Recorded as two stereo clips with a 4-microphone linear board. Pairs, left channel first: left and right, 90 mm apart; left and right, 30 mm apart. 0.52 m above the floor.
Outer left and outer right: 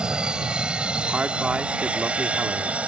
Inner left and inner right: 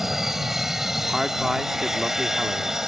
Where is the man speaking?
15° right (ahead or behind).